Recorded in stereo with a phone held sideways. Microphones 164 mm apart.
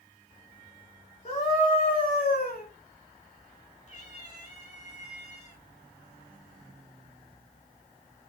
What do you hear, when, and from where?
1.2 s a scream: 40° left (ahead or behind), 2.5 m; by 2.6 s 65° left (ahead or behind), 4 m
3.9 s a cat meowing: 45° left (ahead or behind), 4.5 m